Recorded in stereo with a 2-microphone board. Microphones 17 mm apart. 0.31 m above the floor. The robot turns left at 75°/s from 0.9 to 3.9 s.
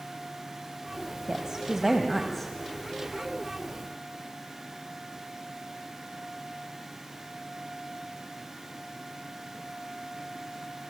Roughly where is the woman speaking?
Behind right.